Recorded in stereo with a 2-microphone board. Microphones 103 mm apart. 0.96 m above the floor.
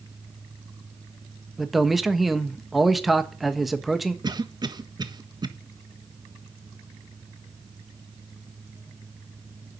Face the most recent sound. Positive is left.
turn(degrees=-40)  # may be behind; listen again after turning